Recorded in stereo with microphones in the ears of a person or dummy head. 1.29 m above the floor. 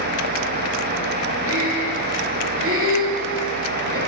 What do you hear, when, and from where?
1.5 s breathing: 65° right (ahead or behind), 1.1 m